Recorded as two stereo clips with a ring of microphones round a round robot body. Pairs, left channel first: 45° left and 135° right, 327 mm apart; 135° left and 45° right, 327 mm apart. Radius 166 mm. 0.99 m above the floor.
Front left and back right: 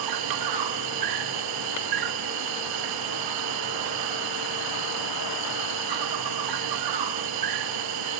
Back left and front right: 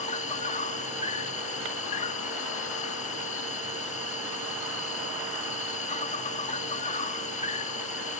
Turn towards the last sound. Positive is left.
turn(degrees=-155)